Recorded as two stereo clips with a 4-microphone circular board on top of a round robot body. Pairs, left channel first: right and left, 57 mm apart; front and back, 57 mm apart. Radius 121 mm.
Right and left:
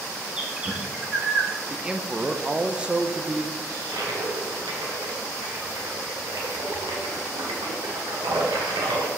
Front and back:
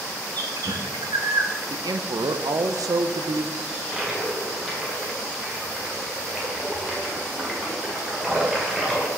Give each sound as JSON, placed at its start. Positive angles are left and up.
{"t": 0.4, "sound": "a bird", "azimuth_deg": 170, "distance_m": 1.0}
{"t": 1.7, "sound": "a man speaking", "azimuth_deg": 165, "distance_m": 0.6}
{"t": 3.7, "sound": "a toilet flushing", "azimuth_deg": 95, "distance_m": 1.5}